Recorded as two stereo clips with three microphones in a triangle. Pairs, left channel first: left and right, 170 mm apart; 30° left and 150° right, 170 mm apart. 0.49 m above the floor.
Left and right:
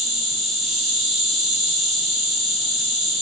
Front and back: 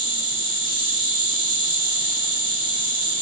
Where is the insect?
Straight ahead, 2 m.